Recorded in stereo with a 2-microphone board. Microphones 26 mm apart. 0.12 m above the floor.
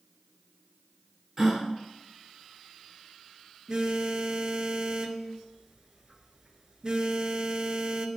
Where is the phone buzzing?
30° right (ahead or behind), 0.6 m.